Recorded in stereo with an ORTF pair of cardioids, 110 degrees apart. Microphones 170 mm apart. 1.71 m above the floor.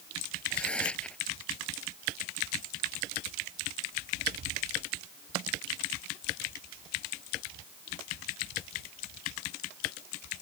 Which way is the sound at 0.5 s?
5° left.